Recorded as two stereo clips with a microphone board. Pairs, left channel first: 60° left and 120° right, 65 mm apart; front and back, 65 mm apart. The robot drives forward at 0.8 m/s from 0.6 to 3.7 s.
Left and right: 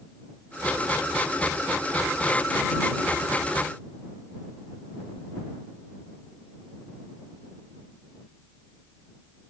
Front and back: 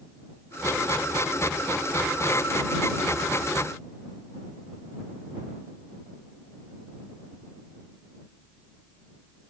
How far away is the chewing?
No chewing in this recording.